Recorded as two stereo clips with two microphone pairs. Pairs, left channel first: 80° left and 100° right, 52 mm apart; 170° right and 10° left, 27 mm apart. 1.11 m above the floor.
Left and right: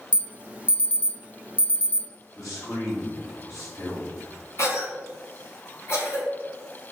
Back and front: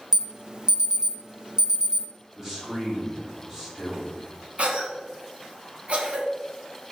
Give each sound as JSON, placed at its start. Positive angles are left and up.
{"t": 0.1, "sound": "an alarm", "azimuth_deg": -35, "distance_m": 0.6}
{"t": 2.4, "sound": "a man speaking", "azimuth_deg": 90, "distance_m": 3.0}
{"t": 4.6, "sound": "a cough", "azimuth_deg": 50, "distance_m": 2.0}